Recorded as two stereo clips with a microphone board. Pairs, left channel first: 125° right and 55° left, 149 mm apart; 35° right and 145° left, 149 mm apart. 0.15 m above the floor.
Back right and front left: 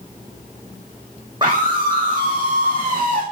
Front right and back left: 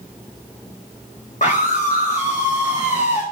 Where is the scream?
Straight ahead, 4.5 m.